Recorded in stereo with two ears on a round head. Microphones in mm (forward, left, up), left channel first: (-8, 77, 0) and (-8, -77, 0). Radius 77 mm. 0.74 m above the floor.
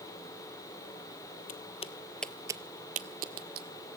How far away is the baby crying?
I don't hear a baby crying.